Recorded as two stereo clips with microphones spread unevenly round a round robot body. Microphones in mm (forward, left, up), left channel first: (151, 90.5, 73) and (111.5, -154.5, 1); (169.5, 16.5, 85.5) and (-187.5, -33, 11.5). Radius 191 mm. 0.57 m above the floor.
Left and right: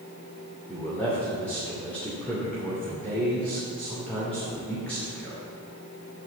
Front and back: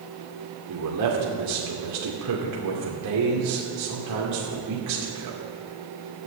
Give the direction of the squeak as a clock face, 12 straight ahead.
No squeak in this recording.